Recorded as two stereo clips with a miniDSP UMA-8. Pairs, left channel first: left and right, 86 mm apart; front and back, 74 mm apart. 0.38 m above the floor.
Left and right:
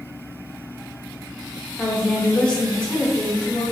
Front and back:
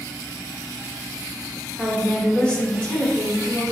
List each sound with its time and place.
1.8 s a woman speaking: 35° left, 0.9 m